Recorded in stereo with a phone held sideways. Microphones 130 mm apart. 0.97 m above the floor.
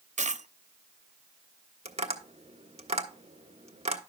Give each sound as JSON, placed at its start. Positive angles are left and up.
{"t": 0.2, "sound": "a dropped coin", "side_deg": -65, "distance_m": 0.6}
{"t": 1.9, "sound": "tapping", "side_deg": -55, "distance_m": 1.3}